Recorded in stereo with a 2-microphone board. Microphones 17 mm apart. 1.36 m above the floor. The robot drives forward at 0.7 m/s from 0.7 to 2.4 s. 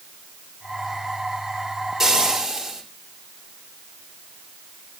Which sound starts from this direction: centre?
Frying, at 2.0 s.